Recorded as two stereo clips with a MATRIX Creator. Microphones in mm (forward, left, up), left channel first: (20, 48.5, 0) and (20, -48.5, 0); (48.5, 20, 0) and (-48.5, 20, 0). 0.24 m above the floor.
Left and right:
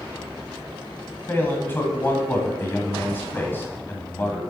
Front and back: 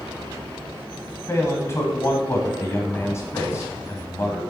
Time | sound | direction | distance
1.3 | a man speaking | 40° left | 1.5 m